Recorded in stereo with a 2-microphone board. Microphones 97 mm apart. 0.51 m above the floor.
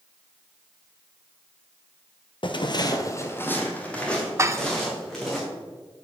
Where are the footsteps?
55° left (ahead or behind), 0.8 m; by 5.4 s centre (ahead or behind), 3 m.